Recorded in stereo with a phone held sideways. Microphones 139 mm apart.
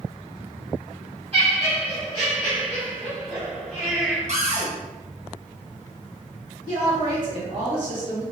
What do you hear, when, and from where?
1.3 s laughter: 45° right (ahead or behind), 0.7 m
4.3 s a cupboard door: 55° right (ahead or behind), 0.9 m
6.7 s a woman speaking: 35° right (ahead or behind), 1.2 m